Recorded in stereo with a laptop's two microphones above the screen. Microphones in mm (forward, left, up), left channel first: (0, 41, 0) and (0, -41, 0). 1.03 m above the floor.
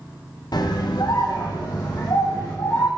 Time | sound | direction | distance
0.5 | a scream | 55° left (ahead or behind) | 0.7 m